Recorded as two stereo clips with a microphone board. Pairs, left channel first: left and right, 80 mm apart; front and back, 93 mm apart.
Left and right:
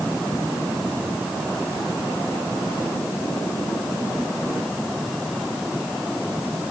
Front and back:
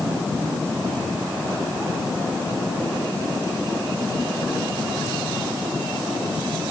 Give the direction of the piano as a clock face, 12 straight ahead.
I don't hear a piano.